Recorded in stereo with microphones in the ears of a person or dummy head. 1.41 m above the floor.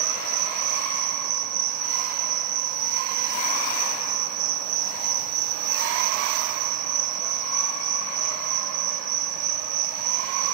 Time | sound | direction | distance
0.0 | an insect | 85° right | 5 m